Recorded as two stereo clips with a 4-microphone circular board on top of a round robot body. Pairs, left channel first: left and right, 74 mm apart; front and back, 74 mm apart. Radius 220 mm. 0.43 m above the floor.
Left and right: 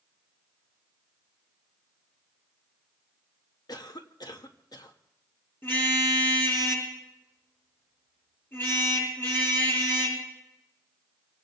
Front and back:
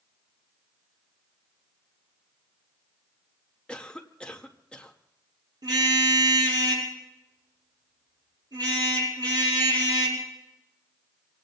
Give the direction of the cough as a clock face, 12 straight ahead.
10 o'clock.